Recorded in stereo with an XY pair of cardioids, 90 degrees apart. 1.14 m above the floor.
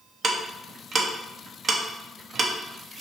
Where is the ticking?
50° right, 0.6 m.